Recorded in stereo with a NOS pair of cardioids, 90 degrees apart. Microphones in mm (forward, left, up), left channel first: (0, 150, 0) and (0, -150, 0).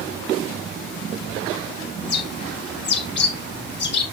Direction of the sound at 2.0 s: 35° left.